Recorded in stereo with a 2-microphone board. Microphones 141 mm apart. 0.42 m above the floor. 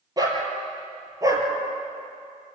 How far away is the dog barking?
About 4 m.